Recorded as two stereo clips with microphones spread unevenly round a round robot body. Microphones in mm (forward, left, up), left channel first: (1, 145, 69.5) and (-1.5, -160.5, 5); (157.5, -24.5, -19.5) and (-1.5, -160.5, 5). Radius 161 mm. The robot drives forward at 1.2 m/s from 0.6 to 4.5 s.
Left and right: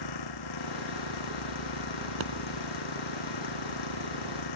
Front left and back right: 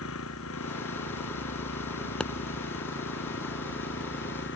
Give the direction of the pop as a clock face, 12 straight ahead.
1 o'clock.